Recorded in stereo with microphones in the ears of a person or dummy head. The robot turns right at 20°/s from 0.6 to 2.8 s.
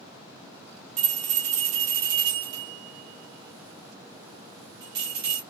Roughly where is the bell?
Right.